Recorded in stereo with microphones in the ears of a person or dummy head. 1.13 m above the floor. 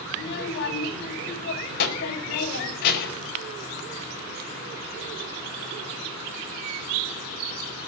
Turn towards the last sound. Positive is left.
turn(degrees=55)  # may be behind; listen again after turning